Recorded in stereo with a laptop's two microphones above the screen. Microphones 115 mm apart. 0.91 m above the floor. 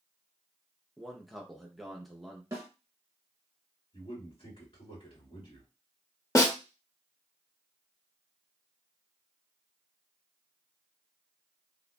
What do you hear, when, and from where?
1.0 s a man speaking: centre (ahead or behind), 0.6 m
2.5 s a snare drum: 30° right (ahead or behind), 0.7 m
3.9 s a man speaking: 60° left (ahead or behind), 2.5 m
6.3 s a snare drum: 30° left (ahead or behind), 0.7 m